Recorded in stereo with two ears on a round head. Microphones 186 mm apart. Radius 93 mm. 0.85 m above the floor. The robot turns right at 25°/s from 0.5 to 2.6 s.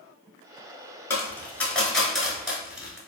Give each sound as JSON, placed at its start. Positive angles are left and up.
{"t": 1.1, "sound": "a dropped coin", "side_deg": 10, "distance_m": 0.8}